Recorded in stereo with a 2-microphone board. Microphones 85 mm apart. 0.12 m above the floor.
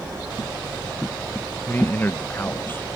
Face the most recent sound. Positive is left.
turn(degrees=25)  # may be behind; listen again after turning